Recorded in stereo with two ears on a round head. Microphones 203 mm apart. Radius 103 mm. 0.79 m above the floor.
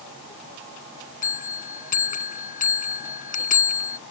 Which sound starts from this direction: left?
A bell, at 1.2 s.